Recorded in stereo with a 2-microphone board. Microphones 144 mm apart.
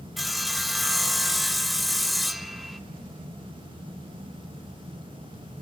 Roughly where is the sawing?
Centre.